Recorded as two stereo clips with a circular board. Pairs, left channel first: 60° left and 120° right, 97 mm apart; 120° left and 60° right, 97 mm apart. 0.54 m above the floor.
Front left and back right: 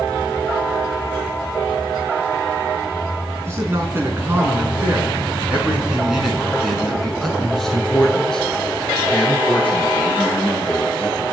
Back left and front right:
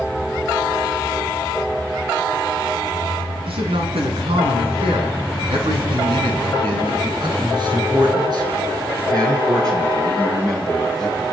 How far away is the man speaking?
About 6 m.